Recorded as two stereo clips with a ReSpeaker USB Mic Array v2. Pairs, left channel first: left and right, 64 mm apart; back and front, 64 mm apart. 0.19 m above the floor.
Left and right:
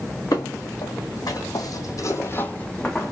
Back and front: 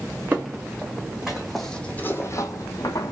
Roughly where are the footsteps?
Ahead left.